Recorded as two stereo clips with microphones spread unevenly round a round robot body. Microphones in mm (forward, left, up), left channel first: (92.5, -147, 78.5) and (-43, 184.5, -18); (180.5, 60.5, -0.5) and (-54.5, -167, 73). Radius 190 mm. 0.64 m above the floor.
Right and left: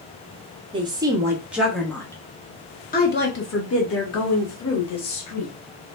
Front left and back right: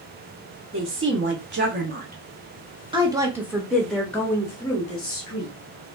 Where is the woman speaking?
170° left, 1.5 m; by 5.5 s 20° right, 1.8 m.